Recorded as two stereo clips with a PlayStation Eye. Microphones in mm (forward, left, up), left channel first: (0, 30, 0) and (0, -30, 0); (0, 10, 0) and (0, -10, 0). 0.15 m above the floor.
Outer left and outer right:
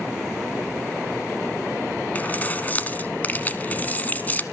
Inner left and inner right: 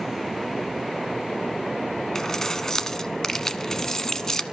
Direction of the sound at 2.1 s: 25° left (ahead or behind).